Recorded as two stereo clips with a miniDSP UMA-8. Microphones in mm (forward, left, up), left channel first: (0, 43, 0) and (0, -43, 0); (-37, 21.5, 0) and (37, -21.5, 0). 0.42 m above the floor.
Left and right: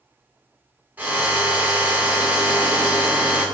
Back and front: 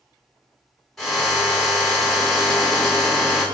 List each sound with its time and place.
1.0 s a drill: 135° right, 1.6 m